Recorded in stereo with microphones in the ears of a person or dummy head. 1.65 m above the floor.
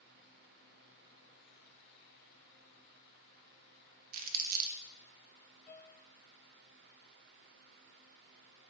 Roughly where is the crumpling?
Right.